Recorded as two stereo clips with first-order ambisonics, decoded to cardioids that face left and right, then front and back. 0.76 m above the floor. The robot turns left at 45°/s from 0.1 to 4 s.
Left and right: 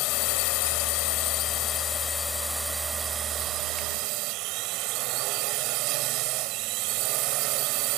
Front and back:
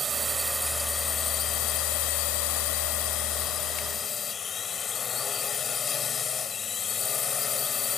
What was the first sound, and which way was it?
A drone, 110° left.